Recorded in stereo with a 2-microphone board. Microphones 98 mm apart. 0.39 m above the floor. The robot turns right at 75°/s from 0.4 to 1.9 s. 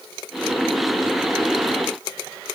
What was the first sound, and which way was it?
Only background noise.